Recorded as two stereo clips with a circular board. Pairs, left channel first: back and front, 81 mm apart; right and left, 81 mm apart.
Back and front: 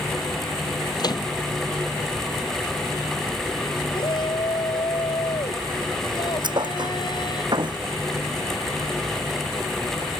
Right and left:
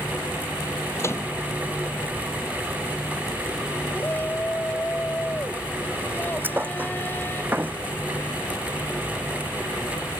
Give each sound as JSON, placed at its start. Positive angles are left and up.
{"t": 1.0, "sound": "a microwave", "azimuth_deg": -145}
{"t": 3.9, "sound": "a shout", "azimuth_deg": -155}
{"t": 6.4, "sound": "a thud", "azimuth_deg": 25}